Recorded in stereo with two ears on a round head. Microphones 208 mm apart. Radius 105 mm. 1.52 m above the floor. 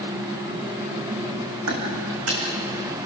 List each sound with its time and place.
1.7 s footsteps: 70° right (ahead or behind), 4.5 m